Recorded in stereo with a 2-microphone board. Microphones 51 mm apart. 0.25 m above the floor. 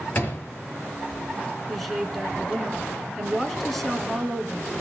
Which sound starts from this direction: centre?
A woman speaking, at 1.7 s.